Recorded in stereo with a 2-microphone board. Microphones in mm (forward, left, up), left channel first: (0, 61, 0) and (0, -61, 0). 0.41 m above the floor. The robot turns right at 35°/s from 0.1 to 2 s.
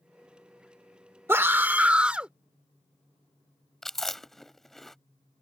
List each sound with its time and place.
1.3 s a scream: 20° right (ahead or behind); by 2.3 s 10° right (ahead or behind)
3.8 s chewing: centre (ahead or behind)